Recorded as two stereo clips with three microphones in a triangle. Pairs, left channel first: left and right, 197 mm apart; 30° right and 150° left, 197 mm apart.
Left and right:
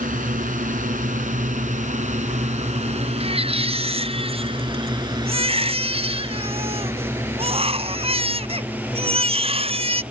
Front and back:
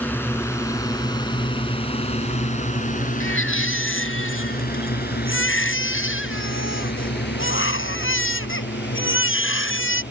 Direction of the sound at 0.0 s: 105° right.